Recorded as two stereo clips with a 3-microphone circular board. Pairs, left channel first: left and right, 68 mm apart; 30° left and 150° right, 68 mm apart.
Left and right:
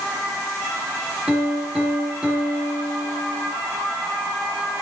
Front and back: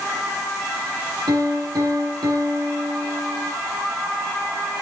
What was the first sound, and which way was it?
A piano, 170° right.